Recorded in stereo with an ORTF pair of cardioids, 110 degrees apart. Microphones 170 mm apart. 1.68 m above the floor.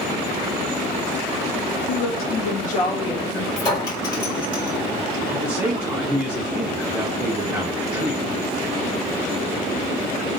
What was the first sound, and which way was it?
A woman speaking, 70° left.